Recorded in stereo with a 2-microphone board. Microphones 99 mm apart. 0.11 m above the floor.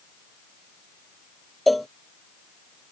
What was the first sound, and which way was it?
A cowbell, centre (ahead or behind).